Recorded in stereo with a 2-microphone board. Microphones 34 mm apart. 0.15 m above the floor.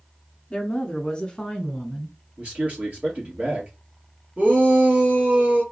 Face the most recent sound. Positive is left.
turn(degrees=-50)  # may be behind; listen again after turning